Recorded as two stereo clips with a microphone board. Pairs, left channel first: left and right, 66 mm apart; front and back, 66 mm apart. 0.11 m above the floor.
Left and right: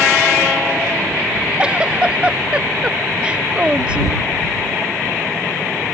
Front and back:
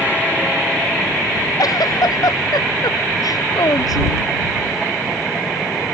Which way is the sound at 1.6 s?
15° right.